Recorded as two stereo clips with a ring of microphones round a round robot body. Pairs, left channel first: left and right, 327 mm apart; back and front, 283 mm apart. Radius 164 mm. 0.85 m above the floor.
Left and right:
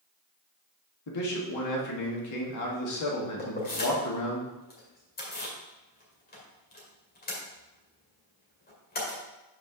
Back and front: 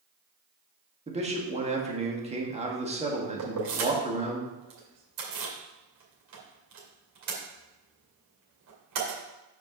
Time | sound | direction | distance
1.1 | a man speaking | 65° left | 1.9 m
3.4 | keys jangling | 25° left | 2 m